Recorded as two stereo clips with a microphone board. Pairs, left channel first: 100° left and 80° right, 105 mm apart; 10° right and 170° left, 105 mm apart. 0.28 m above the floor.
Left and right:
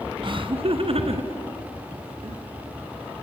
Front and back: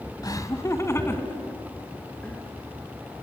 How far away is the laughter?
About 2.0 m.